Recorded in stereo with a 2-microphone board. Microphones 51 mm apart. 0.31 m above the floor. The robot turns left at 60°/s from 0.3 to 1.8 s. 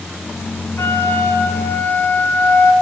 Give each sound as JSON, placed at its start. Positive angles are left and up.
{"t": 0.8, "sound": "a flute", "azimuth_deg": 115, "distance_m": 0.9}